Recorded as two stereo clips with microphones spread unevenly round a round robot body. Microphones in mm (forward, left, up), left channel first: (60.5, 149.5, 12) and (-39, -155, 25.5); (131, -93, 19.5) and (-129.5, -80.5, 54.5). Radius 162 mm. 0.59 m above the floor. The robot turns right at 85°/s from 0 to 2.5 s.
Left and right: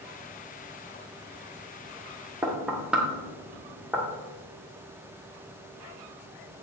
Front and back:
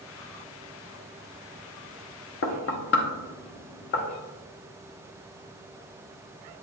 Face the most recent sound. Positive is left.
turn(degrees=-20)